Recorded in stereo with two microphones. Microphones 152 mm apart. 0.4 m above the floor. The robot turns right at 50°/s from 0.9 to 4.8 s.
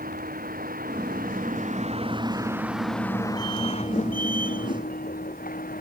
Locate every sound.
0.0 s a vehicle: 100° right; by 5.8 s 95° left